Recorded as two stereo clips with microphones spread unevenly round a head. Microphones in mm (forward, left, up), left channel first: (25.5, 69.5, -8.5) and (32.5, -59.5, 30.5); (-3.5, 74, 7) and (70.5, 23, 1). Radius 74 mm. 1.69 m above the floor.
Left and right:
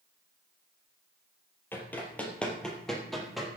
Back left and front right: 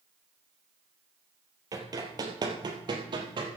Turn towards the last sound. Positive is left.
turn(degrees=-10)